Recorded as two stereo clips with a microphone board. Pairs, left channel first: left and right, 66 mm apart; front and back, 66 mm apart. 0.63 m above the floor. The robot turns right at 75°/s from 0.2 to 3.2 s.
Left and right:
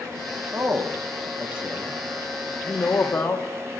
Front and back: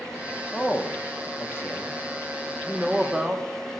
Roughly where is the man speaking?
Right.